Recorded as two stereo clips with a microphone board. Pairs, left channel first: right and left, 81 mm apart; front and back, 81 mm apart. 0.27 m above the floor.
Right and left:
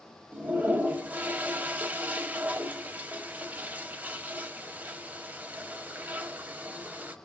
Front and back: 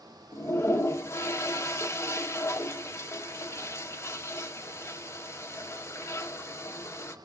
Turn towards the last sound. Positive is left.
turn(degrees=30)